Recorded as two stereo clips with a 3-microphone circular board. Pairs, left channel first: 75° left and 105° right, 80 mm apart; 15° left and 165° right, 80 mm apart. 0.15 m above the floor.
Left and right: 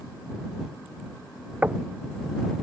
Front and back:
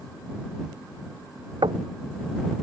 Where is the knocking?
175° right.